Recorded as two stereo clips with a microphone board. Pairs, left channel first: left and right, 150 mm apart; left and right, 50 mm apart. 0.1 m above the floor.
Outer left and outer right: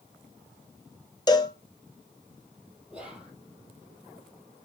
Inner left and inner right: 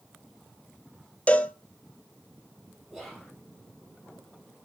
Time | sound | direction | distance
1.3 | a cowbell | 30° left (ahead or behind) | 0.7 m
2.9 | whispering | 5° right (ahead or behind) | 3.5 m